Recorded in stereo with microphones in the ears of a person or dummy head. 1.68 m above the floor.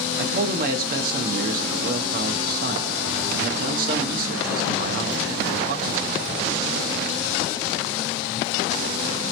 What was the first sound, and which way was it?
A man speaking, 50° right (ahead or behind).